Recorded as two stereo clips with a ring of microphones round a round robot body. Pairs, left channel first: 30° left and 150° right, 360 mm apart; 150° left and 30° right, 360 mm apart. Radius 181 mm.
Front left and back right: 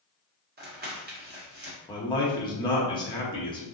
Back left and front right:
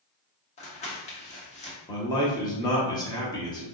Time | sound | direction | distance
0.6 | crumpling | 165° right | 1.0 m
1.9 | a man speaking | 90° left | 0.9 m